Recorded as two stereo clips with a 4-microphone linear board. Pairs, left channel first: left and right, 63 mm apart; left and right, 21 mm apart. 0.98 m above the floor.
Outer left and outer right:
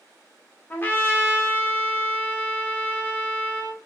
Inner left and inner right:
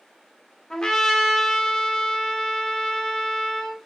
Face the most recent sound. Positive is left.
turn(degrees=30)  # may be behind; listen again after turning